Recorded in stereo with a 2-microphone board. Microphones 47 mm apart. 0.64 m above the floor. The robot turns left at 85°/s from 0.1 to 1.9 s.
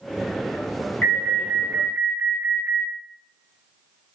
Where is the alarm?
35° left, 1.2 m; by 2.9 s 40° right, 1.2 m.